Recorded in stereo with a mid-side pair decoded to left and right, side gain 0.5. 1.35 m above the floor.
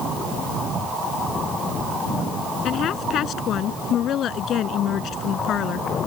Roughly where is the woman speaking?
Ahead left.